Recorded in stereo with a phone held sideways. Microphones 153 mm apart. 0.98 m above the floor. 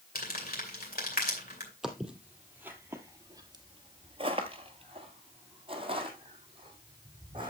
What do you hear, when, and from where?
0.1 s crumpling: 75° left (ahead or behind), 2.5 m
1.8 s footsteps: 5° right (ahead or behind), 1.8 m; by 7.5 s 30° right (ahead or behind), 3 m